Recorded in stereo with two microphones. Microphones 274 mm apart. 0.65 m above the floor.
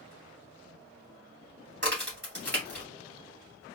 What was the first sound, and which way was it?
A crack, 40° right (ahead or behind).